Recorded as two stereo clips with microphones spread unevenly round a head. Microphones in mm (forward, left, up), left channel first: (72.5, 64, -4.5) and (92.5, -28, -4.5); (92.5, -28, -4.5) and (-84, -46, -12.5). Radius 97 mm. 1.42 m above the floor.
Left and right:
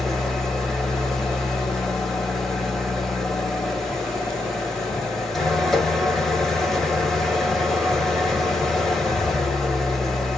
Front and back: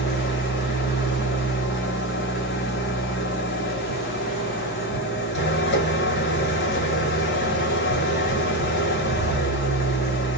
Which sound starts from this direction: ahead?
An engine running, at 0.0 s.